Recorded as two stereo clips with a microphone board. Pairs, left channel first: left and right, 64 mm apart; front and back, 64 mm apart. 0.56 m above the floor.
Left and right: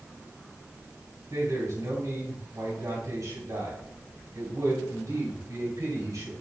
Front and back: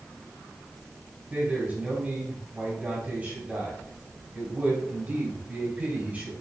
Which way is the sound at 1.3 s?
115° right.